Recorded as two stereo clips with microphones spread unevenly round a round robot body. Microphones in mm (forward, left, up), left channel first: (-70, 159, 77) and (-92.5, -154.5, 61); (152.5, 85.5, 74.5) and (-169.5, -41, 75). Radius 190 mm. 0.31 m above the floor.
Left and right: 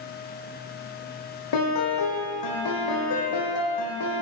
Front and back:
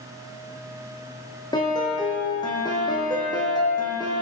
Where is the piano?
100° left, 5 m.